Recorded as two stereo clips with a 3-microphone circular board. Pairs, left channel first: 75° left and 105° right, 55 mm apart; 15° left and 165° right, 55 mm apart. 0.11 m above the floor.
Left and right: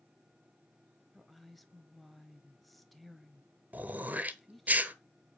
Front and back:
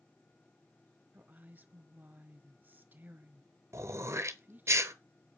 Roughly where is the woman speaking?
Behind.